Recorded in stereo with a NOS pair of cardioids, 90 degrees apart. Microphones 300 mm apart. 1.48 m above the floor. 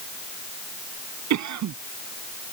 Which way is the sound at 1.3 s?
70° right.